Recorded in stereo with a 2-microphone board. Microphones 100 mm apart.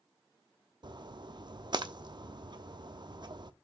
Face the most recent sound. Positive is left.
turn(degrees=-50)  # may be behind; listen again after turning